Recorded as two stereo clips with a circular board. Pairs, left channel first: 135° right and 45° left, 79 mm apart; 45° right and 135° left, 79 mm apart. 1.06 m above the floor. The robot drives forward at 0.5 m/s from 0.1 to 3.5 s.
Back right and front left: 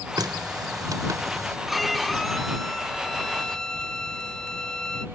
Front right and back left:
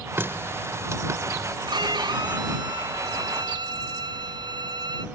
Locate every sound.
0.2 s a running tap: 75° left; by 1.6 s 90° left
1.7 s a violin: 135° left; by 5.0 s 145° left